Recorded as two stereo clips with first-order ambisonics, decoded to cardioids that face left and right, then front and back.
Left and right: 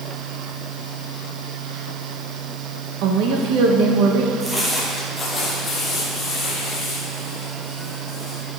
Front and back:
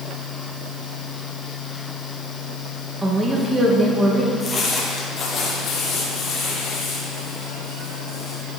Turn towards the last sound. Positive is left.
turn(degrees=35)